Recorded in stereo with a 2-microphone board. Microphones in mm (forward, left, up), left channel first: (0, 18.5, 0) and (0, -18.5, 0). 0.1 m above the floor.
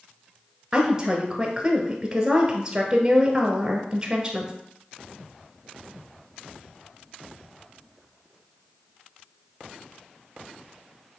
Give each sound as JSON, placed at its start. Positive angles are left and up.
{"t": 0.7, "sound": "a woman speaking", "side_deg": -20, "distance_m": 1.3}